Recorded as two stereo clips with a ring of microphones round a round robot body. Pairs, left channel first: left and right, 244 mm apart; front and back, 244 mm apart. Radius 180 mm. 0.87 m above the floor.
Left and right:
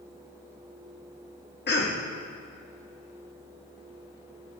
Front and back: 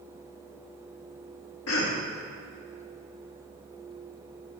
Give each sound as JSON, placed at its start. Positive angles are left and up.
{"t": 1.7, "sound": "a cough", "azimuth_deg": 40, "distance_m": 1.2}